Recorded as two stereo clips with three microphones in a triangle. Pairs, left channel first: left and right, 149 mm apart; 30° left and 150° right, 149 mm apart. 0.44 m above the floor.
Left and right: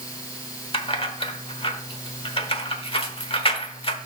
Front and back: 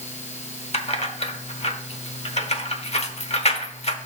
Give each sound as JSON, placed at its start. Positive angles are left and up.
{"t": 0.7, "sound": "keys jangling", "azimuth_deg": 55, "distance_m": 0.9}